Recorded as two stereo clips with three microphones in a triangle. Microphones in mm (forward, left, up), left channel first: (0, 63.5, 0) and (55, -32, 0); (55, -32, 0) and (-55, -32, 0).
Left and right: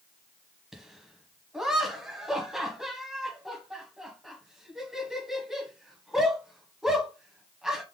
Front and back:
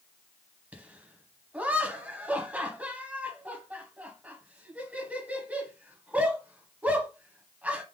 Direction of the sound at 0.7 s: 135° right.